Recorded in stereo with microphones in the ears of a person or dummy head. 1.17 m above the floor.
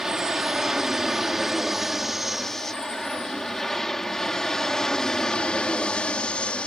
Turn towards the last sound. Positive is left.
turn(degrees=5)  # may be behind; listen again after turning